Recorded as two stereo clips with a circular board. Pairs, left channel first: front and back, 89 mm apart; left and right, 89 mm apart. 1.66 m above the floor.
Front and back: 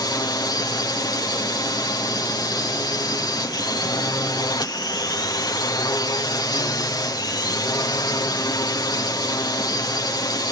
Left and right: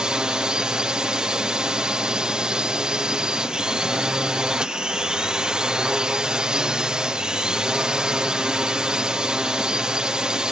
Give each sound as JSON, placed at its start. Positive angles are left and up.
{"t": 0.0, "sound": "a drone", "azimuth_deg": -15}